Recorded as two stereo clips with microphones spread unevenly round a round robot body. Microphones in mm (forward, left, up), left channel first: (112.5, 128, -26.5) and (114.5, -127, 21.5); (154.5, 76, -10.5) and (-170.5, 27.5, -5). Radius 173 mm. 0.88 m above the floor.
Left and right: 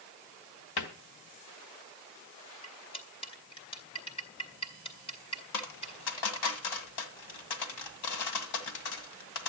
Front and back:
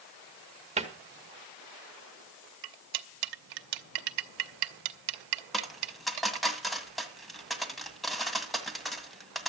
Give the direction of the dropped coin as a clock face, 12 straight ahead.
9 o'clock.